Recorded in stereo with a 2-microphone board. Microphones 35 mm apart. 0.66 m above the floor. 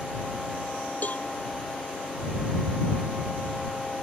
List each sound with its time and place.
1.0 s a cowbell: 50° left (ahead or behind)